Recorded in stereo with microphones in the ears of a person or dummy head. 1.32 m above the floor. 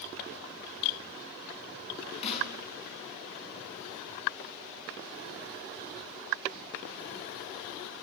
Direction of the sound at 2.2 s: 30° left (ahead or behind).